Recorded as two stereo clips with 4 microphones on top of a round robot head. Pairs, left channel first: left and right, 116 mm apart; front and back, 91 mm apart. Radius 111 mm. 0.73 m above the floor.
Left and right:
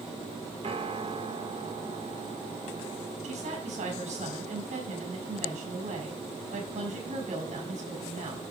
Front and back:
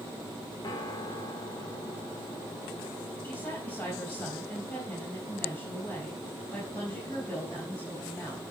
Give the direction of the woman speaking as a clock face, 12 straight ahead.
3 o'clock.